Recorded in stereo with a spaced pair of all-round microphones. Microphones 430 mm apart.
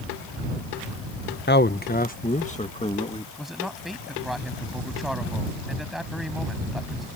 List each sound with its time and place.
1.5 s a man speaking: 25° left (ahead or behind); by 3.3 s 15° left (ahead or behind)
3.4 s a man speaking: centre (ahead or behind)